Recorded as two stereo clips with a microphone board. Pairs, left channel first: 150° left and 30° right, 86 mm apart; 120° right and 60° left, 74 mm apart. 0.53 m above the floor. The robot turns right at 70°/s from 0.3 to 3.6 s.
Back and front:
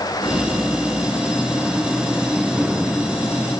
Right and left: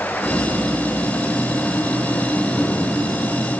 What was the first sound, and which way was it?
Only background noise.